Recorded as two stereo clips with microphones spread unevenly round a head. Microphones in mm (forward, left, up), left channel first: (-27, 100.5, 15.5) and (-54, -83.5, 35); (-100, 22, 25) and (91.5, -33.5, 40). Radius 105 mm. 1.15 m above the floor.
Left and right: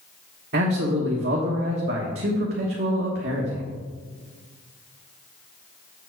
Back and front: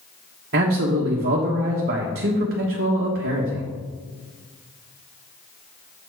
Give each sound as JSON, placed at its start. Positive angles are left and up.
{"t": 0.5, "sound": "a man speaking", "azimuth_deg": -55, "distance_m": 1.2}